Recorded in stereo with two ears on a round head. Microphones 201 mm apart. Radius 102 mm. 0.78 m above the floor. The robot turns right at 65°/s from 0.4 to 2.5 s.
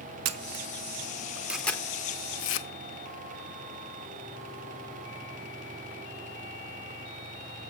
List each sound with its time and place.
0.2 s a camera shutter: 70° right (ahead or behind), 0.7 m; by 2.7 s 55° left (ahead or behind), 0.7 m